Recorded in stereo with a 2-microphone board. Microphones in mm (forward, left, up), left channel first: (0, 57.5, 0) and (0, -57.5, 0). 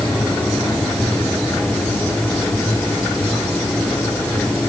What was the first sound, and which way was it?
Only background noise.